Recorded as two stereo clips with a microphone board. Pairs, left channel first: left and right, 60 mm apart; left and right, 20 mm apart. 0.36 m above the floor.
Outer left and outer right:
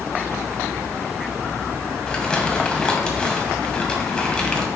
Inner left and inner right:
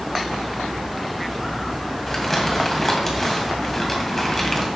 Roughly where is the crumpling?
Centre.